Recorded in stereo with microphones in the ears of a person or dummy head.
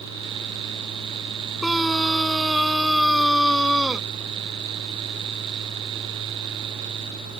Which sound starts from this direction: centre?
A scream, at 1.6 s.